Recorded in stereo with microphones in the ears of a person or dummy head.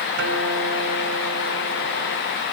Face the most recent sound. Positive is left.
turn(degrees=-60)  # may be behind; listen again after turning